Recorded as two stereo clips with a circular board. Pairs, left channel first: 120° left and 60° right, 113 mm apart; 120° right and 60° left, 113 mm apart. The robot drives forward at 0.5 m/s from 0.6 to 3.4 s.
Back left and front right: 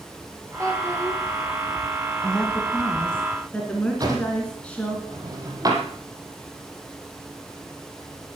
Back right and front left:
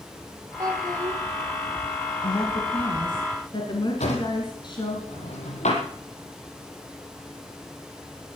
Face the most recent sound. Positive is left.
turn(degrees=-120)